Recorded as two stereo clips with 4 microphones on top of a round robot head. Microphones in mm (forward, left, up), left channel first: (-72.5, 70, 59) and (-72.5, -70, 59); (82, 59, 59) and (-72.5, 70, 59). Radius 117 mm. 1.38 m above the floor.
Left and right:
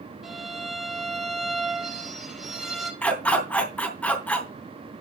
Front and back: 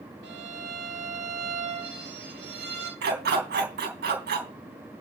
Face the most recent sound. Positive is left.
turn(degrees=170)